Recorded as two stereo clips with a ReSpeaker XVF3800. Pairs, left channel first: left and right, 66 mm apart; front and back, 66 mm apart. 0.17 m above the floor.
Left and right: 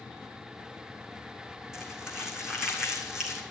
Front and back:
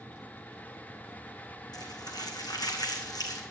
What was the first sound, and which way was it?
Crumpling, 10° right.